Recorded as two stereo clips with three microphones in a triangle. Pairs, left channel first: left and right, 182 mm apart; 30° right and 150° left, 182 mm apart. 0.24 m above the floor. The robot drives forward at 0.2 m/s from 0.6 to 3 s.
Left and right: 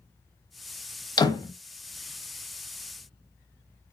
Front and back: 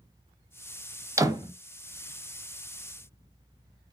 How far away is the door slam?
About 0.7 m.